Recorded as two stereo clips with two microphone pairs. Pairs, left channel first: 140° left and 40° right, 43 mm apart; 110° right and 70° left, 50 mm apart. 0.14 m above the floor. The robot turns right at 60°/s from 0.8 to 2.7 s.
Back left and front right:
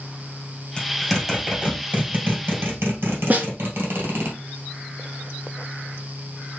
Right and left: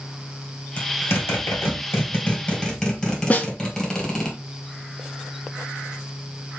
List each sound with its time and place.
0.8 s a zipper: 145° right, 2 m; by 4.3 s 35° right, 2 m
3.3 s a snare drum: 70° right, 1.1 m